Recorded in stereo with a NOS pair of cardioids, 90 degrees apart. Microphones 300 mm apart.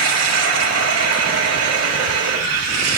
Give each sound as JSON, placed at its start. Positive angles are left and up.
{"t": 0.0, "sound": "running water", "azimuth_deg": -55, "distance_m": 7.0}